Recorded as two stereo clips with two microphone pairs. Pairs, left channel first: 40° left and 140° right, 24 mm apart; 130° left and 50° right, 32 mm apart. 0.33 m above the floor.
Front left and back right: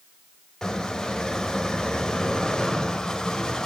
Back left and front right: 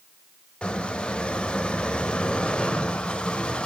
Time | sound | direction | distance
0.6 | a squeak | 90° left | 1.1 m